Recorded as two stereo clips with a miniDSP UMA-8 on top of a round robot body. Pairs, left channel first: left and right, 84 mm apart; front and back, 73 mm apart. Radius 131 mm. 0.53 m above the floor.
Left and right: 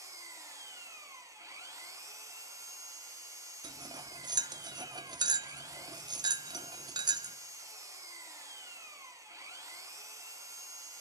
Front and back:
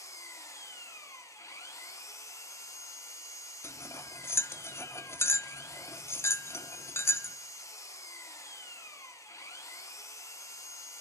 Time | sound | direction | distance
0.0 | an engine running | 40° right | 0.9 m
3.6 | cutlery clinking | 55° right | 0.5 m